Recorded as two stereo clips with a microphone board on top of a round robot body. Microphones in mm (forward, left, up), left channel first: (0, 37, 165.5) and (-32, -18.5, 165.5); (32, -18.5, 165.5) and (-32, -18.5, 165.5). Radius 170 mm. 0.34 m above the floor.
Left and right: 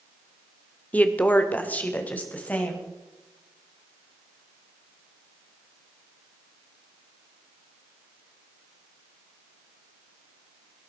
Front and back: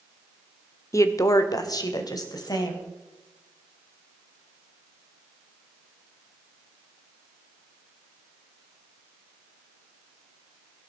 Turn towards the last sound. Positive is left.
turn(degrees=-5)